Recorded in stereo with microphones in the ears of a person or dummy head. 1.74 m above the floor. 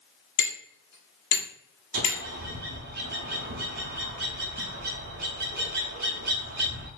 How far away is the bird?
About 0.7 m.